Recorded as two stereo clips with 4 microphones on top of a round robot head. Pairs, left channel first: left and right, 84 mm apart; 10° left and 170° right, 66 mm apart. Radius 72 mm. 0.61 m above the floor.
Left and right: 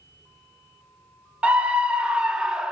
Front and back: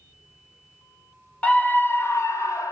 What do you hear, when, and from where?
1.4 s a scream: 30° right, 0.9 m; by 2.7 s 10° right, 1.3 m